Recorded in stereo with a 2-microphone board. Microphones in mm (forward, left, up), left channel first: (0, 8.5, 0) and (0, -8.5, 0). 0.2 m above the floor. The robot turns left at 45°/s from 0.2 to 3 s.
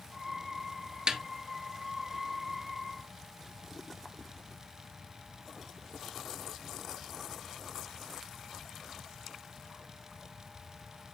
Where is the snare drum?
45° right (ahead or behind), 0.9 m; by 1.2 s 50° right (ahead or behind), 0.9 m.